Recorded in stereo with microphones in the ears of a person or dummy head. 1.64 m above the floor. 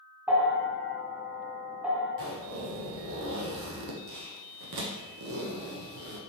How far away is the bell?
About 1.0 m.